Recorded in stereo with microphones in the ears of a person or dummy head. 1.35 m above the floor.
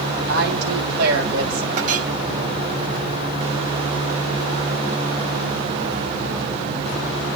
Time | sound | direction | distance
0.3 | a woman speaking | 60° right (ahead or behind) | 7 m
1.8 | a clink | 45° right (ahead or behind) | 5 m